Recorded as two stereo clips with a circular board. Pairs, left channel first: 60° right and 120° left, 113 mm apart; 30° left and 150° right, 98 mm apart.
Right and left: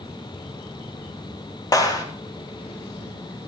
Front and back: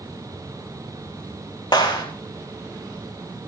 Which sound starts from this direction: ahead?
A clap, at 1.7 s.